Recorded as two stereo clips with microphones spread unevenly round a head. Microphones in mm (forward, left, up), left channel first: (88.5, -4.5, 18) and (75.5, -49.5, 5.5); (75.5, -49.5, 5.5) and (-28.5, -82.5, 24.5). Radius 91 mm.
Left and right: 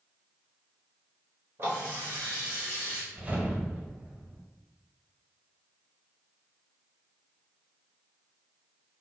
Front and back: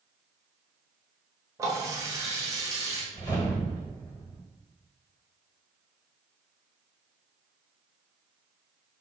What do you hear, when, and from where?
1.6 s a running tap: 150° right, 0.7 m
3.1 s a whoosh: 45° right, 1.4 m